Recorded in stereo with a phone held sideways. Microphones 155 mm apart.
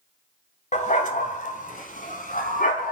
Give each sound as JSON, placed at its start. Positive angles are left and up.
{"t": 0.7, "sound": "a dog barking", "side_deg": 50, "distance_m": 2.0}